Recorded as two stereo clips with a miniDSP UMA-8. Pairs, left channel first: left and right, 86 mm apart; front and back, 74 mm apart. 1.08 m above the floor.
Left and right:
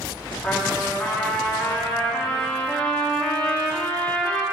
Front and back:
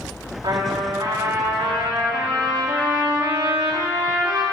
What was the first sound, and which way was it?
A trumpet, 170° left.